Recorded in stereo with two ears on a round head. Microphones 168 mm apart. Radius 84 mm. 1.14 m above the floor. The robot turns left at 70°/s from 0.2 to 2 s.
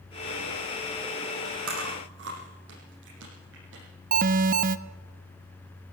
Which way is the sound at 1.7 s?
85° right.